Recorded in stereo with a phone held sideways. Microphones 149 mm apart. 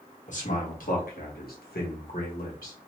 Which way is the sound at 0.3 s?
50° left (ahead or behind).